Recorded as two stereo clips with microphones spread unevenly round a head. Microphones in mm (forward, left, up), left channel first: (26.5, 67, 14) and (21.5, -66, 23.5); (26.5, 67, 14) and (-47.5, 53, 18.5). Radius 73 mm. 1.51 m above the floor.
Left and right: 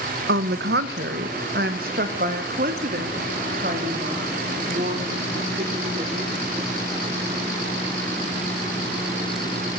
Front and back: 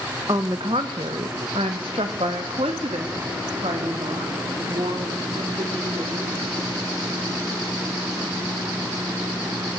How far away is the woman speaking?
About 1.0 m.